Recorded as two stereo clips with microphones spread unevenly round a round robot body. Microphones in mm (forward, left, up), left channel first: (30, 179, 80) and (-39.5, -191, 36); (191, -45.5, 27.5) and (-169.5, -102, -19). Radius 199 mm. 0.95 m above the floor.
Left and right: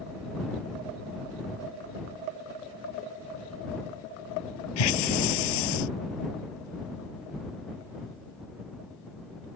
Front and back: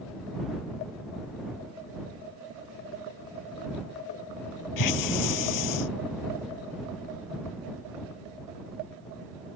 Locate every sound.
4.8 s a hiss: 55° left